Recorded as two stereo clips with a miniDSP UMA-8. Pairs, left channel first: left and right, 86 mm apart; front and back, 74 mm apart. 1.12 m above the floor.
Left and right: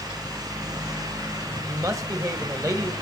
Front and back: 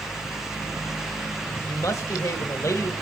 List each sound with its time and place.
1.7 s a woman speaking: 45° right, 1.1 m